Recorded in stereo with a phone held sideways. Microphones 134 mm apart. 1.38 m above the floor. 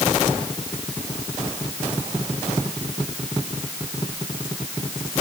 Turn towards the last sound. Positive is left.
No sound to turn to.